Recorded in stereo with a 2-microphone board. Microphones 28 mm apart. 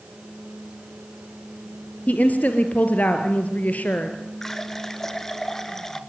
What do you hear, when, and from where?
2.1 s a woman speaking: 60° left (ahead or behind), 2.5 m
4.4 s a running tap: 10° left (ahead or behind), 1.5 m